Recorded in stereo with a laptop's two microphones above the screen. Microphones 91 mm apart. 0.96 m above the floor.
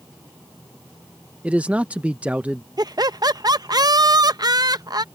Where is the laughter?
50° right (ahead or behind).